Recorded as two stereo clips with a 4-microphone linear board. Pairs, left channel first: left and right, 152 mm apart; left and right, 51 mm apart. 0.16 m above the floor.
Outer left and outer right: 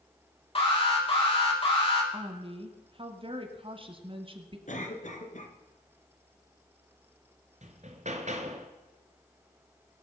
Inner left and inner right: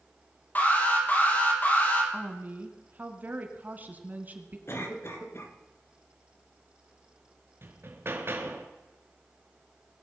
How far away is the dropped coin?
No dropped coin in this recording.